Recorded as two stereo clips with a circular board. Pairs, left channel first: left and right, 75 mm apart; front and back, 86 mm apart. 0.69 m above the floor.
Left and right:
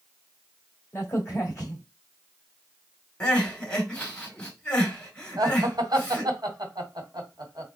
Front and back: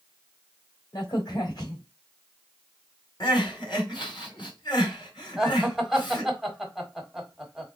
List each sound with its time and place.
0.9 s a crack: 40° left, 1.9 m
3.2 s crying: 15° left, 2.5 m
5.4 s laughter: 95° right, 1.7 m